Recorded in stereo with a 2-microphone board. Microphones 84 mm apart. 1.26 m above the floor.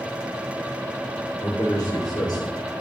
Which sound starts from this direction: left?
A man speaking, at 1.4 s.